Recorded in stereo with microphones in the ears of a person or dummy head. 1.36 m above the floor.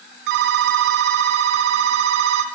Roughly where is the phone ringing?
Right.